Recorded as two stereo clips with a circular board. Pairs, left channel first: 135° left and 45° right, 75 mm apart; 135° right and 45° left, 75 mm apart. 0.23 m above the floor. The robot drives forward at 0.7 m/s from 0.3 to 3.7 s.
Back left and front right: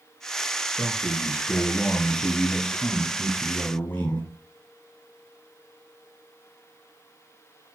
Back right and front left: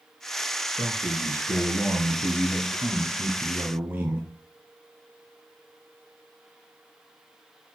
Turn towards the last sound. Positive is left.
turn(degrees=90)